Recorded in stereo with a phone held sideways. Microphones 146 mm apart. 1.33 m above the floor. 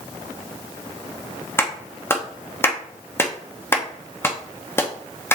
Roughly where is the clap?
Centre.